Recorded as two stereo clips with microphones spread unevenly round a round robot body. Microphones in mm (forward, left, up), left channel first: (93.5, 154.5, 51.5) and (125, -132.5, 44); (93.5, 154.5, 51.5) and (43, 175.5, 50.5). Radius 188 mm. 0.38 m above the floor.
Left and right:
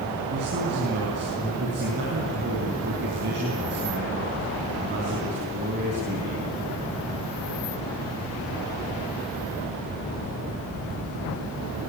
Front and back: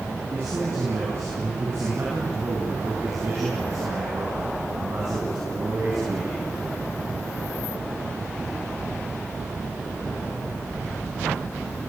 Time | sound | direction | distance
0.3 | a man speaking | 145° right | 4.5 m